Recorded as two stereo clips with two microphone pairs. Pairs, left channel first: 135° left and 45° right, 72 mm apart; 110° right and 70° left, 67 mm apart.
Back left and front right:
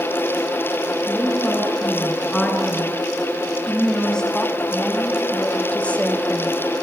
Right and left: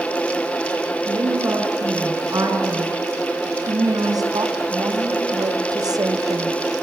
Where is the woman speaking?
55° left, 8.5 m; by 6.6 s 80° left, 1.6 m.